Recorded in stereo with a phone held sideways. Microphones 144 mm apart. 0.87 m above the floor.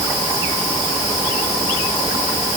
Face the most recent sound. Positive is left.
No sound to turn to.